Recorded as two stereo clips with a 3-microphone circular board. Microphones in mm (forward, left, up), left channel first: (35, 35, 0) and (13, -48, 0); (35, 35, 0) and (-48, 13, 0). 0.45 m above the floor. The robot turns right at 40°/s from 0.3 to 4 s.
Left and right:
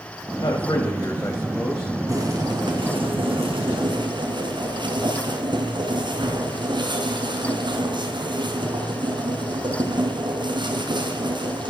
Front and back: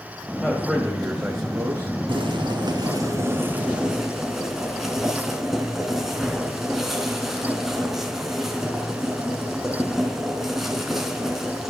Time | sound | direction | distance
0.4 | a man speaking | 105° left | 2.5 m
2.1 | boiling | 155° right | 3.5 m